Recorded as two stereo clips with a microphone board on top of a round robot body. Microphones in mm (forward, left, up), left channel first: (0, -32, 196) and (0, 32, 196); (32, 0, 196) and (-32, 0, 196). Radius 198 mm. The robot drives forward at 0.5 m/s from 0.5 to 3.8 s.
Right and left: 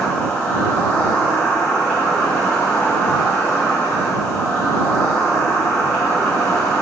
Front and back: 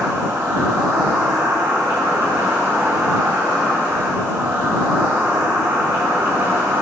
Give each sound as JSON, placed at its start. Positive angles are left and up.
{"t": 0.0, "sound": "an insect", "azimuth_deg": -165, "distance_m": 2.5}